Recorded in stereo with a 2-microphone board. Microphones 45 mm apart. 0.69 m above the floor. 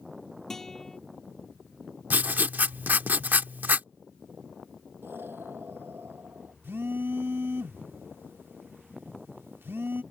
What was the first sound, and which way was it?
A guitar, 10° left (ahead or behind).